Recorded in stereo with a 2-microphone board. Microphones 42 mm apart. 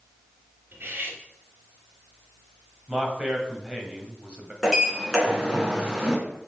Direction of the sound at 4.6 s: 10° right (ahead or behind).